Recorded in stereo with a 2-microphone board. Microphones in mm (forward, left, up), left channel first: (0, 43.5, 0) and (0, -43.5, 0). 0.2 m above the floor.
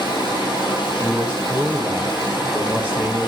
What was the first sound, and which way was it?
Running water, 65° left (ahead or behind).